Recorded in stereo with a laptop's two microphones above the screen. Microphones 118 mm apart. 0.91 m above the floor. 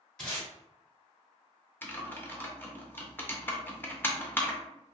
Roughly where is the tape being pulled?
Centre.